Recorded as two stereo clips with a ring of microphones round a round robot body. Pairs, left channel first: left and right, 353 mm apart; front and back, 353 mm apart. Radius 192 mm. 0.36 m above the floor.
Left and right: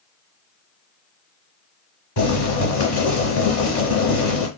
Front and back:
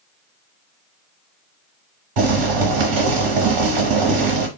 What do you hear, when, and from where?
2.2 s boiling: 145° left, 1.0 m